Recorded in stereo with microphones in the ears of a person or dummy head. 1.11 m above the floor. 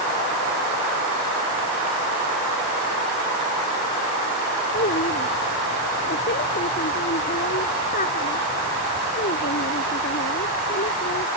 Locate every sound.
4.7 s a child speaking: 40° left (ahead or behind)